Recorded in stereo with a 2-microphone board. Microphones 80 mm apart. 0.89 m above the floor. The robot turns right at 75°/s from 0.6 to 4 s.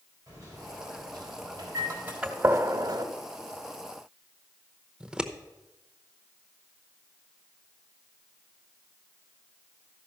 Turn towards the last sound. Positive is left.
turn(degrees=-10)  # may be behind; listen again after turning